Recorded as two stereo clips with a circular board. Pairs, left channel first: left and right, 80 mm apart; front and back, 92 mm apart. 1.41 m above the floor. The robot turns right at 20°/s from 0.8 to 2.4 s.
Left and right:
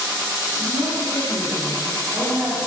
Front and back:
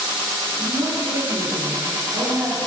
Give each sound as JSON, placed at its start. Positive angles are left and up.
{"t": 0.6, "sound": "a woman speaking", "azimuth_deg": -150, "distance_m": 3.5}